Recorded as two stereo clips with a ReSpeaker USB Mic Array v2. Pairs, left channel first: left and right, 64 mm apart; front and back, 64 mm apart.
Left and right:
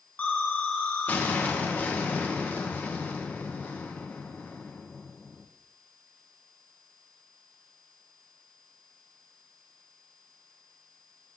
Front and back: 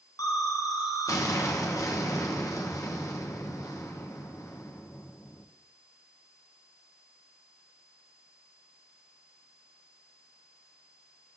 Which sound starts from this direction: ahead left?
An explosion, at 0.2 s.